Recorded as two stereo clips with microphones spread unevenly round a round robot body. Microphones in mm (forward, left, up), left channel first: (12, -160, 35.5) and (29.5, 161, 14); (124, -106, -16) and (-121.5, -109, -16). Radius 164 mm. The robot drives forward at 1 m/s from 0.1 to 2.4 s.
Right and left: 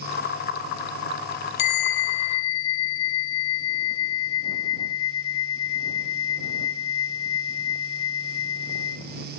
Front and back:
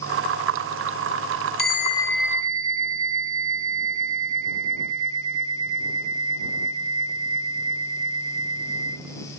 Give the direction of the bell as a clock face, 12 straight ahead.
2 o'clock.